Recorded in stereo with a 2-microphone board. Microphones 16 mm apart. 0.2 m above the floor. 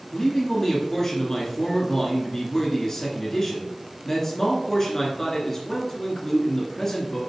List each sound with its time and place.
0.1 s a man speaking: 25° left (ahead or behind), 2 m